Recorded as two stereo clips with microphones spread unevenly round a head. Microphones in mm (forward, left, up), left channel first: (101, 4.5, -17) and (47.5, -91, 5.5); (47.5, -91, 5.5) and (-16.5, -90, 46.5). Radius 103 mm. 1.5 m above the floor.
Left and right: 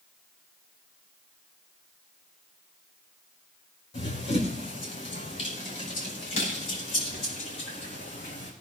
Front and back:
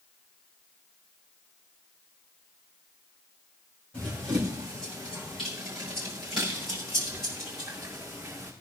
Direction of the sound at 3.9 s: 50° left.